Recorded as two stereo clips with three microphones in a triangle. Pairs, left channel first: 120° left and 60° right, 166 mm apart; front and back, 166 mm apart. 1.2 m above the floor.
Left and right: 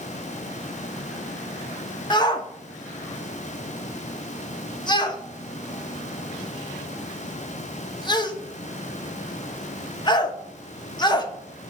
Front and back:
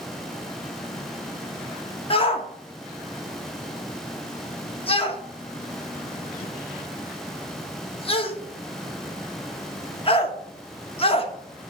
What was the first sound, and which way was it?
A shout, 55° left.